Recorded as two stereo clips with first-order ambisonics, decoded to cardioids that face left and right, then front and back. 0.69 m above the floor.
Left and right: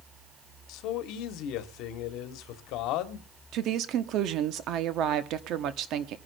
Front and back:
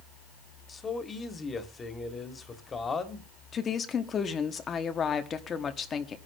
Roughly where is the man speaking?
Left.